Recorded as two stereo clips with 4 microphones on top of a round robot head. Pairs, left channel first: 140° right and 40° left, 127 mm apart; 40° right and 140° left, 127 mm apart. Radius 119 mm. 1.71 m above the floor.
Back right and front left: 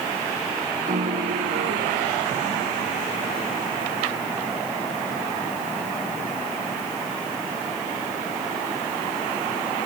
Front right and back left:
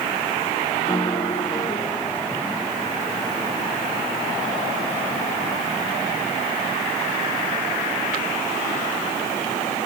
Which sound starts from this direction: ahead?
A piano, at 0.9 s.